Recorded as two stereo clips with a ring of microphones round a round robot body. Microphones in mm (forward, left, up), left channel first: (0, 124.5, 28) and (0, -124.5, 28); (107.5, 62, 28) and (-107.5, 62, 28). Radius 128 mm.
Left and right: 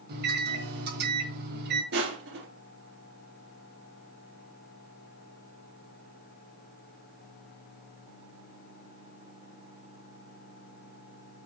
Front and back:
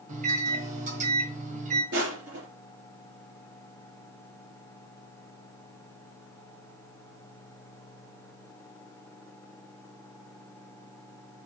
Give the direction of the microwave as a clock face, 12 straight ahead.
4 o'clock.